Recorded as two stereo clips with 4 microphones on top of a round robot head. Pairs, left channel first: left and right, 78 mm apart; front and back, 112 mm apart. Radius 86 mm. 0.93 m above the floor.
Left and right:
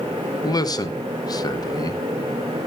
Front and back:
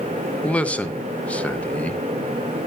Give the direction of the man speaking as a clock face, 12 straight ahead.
9 o'clock.